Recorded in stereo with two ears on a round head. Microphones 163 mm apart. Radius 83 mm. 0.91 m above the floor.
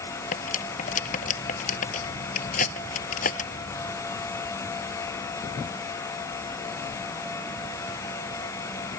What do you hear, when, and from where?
0.3 s cutlery clinking: 45° left (ahead or behind)